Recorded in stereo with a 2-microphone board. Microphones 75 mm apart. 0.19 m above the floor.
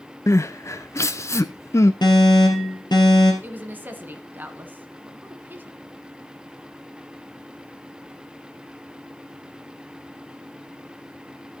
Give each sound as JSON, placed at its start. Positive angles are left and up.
{"t": 0.3, "sound": "crying", "side_deg": 40, "distance_m": 0.6}
{"t": 2.0, "sound": "an alarm", "side_deg": 70, "distance_m": 2.5}
{"t": 3.4, "sound": "a woman speaking", "side_deg": -25, "distance_m": 1.6}